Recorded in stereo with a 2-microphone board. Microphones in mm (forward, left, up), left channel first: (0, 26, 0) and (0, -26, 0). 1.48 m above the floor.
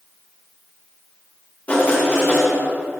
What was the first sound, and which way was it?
Writing, 30° left (ahead or behind).